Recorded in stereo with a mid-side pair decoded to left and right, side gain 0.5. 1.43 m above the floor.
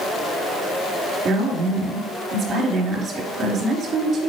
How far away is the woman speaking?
About 3 m.